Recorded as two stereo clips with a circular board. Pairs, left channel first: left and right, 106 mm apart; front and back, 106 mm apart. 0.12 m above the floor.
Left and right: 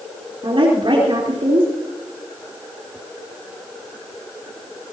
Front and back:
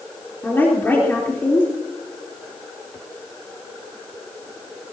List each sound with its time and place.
0.4 s a woman speaking: 70° right, 3.5 m